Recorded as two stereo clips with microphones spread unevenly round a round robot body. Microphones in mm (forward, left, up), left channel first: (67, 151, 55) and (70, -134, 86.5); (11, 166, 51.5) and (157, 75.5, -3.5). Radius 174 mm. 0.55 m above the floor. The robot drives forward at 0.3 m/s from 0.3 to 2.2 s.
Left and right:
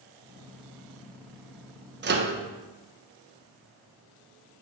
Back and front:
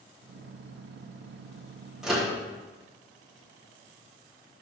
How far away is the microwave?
About 0.9 m.